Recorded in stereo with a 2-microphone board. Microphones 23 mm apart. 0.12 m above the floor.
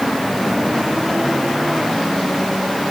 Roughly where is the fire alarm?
I don't hear a fire alarm.